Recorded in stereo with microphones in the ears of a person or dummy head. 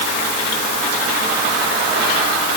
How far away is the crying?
I don't hear crying.